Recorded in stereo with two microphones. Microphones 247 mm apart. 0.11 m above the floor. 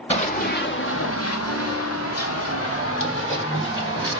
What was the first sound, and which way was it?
Running footsteps, 25° left (ahead or behind).